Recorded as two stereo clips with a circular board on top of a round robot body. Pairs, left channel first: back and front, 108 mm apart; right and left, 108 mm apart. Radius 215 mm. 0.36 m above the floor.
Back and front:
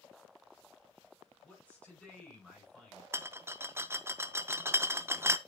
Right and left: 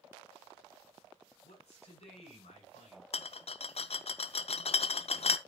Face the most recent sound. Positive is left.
turn(degrees=-65)